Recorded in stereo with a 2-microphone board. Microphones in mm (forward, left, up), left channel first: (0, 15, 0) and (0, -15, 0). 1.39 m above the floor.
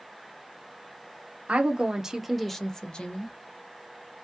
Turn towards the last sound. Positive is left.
turn(degrees=45)  # may be behind; listen again after turning